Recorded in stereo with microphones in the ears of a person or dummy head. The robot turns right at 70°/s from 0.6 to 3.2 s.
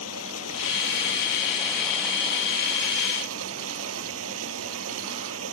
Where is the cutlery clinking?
No cutlery clinking in this recording.